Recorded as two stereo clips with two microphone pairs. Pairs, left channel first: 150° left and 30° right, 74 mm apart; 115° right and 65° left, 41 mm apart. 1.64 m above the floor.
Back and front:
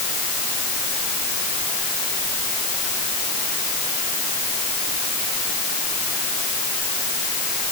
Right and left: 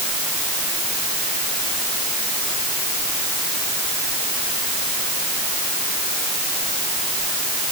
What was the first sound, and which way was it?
Only background noise.